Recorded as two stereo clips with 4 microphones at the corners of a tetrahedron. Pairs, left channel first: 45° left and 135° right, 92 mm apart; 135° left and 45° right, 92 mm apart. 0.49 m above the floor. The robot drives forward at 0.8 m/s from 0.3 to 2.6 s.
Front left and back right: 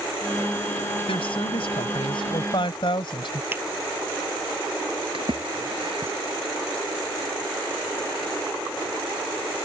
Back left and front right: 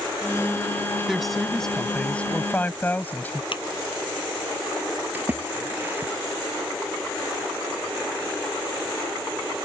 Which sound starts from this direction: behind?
A finger snap, at 3.5 s.